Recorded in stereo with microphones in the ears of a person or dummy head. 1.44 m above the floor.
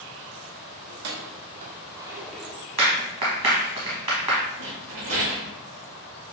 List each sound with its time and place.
0.9 s keys jangling: 55° right (ahead or behind), 1.0 m; by 2.7 s 15° left (ahead or behind), 0.8 m
2.8 s a clap: 25° right (ahead or behind), 1.4 m
4.6 s a rattle: 35° right (ahead or behind), 1.3 m